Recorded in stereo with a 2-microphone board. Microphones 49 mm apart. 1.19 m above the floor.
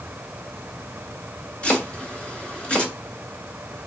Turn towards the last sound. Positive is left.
turn(degrees=20)  # may be behind; listen again after turning